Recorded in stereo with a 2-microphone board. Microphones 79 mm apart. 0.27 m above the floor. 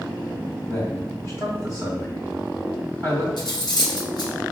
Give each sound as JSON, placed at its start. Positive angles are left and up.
{"t": 0.7, "sound": "a man speaking", "side_deg": 35, "distance_m": 1.7}
{"t": 3.4, "sound": "cutlery clinking", "side_deg": 65, "distance_m": 1.3}